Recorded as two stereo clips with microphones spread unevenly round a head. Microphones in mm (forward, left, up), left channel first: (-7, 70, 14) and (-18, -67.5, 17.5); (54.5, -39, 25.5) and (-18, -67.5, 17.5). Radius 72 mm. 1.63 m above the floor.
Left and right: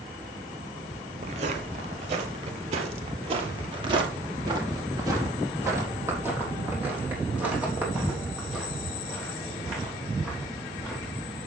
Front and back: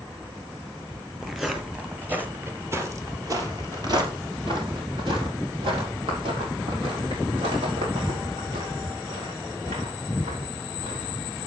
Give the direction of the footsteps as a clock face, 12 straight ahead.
2 o'clock.